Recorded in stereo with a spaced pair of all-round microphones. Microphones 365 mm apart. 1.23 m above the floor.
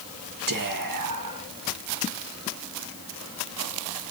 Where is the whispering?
60° right (ahead or behind), 1.7 m.